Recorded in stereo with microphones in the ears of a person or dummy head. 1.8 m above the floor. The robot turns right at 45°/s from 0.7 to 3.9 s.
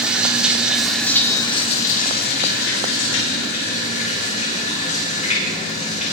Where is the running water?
10° right, 4.5 m; by 6.1 s 135° left, 4.5 m.